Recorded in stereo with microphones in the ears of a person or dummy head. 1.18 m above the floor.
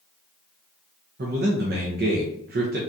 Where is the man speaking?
45° right (ahead or behind), 0.5 m.